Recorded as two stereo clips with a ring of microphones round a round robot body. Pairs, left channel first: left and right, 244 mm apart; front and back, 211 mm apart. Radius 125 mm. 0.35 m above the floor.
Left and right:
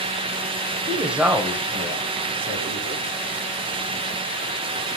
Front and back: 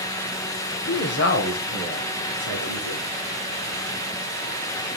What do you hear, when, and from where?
0.9 s a woman speaking: 5° right, 1.0 m; by 3.0 s 10° right, 4 m